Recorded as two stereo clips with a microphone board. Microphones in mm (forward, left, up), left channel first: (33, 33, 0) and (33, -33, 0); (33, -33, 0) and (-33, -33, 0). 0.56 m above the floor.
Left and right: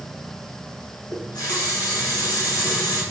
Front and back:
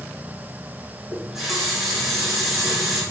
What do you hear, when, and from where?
1.1 s a running tap: 90° left, 4.5 m